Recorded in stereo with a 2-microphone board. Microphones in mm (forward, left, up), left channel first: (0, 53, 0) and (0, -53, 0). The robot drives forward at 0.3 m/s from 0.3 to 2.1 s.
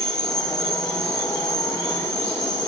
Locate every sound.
0.0 s an insect: 5° left (ahead or behind), 0.7 m